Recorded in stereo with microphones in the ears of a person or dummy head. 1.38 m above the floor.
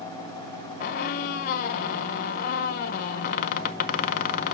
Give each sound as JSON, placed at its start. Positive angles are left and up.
{"t": 0.8, "sound": "a squeak", "side_deg": 50, "distance_m": 0.6}